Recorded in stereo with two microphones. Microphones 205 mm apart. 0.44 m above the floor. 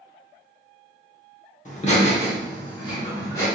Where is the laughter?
35° left (ahead or behind), 0.9 m; by 3.5 s 15° left (ahead or behind), 1.6 m.